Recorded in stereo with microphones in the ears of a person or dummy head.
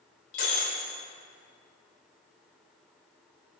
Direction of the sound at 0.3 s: 60° left (ahead or behind).